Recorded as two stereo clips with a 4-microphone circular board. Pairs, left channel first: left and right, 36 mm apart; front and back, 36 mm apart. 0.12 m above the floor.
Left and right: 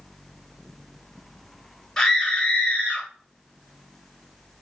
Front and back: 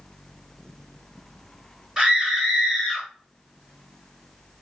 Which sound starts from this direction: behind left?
A scream, at 2.0 s.